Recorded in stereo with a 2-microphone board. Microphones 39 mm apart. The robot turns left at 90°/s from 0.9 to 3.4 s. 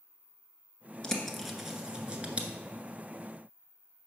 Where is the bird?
20° left (ahead or behind), 1.1 m; by 2.5 s 30° right (ahead or behind), 1.1 m.